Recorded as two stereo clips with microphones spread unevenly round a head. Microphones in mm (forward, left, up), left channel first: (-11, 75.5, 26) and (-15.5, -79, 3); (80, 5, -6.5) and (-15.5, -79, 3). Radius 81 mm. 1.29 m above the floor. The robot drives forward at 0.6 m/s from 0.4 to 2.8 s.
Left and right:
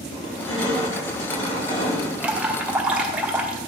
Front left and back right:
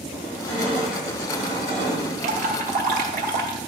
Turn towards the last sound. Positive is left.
turn(degrees=-170)